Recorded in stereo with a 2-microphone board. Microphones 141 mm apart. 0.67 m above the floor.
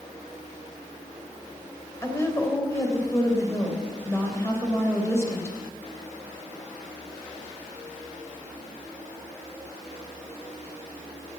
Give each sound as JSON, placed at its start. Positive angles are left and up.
{"t": 2.0, "sound": "a woman speaking", "side_deg": 20, "distance_m": 3.5}